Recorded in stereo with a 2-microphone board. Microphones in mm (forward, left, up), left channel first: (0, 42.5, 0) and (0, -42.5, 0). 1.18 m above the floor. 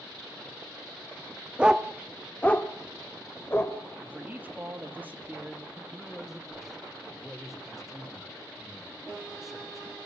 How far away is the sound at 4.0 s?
About 2 m.